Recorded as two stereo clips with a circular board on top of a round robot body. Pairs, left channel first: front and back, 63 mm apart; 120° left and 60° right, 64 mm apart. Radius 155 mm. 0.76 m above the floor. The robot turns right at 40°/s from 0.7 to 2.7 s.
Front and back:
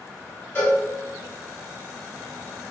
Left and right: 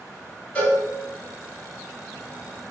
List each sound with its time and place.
0.6 s a cowbell: 55° left, 1.2 m; by 0.8 s 60° left, 1.2 m